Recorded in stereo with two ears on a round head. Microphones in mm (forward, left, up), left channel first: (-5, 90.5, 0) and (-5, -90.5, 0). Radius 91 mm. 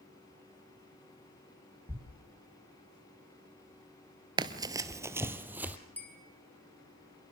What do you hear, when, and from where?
1.9 s a thud: 15° right (ahead or behind), 2.5 m
4.4 s running footsteps: 25° right (ahead or behind), 1.0 m; by 5.8 s 10° right (ahead or behind), 1.8 m
6.0 s a bell: 10° left (ahead or behind), 4.5 m